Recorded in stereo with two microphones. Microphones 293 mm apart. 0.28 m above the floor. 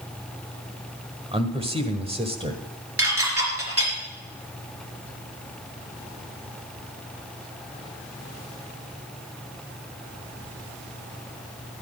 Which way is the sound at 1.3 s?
20° right (ahead or behind).